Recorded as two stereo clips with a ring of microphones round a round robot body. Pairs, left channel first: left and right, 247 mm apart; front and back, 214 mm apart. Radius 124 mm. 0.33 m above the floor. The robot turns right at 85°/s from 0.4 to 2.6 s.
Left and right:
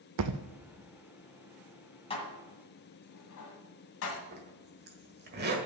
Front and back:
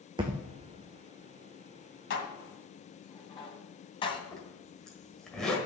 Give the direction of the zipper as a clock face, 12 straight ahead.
3 o'clock.